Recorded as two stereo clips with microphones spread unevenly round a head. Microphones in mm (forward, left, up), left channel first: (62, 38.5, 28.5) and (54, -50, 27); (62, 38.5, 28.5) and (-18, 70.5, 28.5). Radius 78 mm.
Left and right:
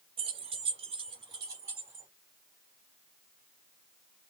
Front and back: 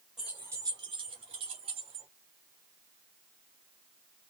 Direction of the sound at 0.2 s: 115° right.